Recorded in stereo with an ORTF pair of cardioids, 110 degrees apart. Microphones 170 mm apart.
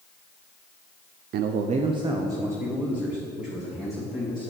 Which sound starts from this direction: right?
A man speaking, at 1.3 s.